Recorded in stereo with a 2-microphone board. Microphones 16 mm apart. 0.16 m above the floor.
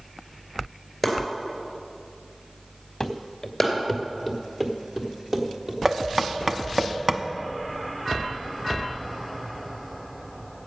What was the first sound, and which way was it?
Chopping, centre (ahead or behind).